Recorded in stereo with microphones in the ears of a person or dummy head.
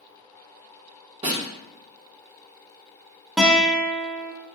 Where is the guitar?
Centre (ahead or behind), 0.5 m.